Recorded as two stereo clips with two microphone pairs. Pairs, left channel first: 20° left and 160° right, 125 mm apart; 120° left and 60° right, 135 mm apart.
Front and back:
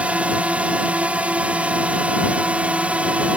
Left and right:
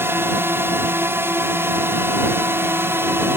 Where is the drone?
95° right.